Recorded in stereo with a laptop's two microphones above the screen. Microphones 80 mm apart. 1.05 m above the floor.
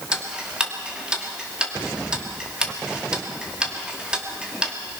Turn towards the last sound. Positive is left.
turn(degrees=-10)  # may be behind; listen again after turning